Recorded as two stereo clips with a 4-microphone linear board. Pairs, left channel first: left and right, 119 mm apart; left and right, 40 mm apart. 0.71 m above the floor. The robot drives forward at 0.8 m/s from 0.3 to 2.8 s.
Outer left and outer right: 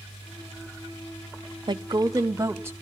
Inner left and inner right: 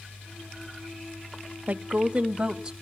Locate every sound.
1.7 s a woman speaking: 40° right (ahead or behind), 0.6 m; by 2.7 s 20° right (ahead or behind), 1.2 m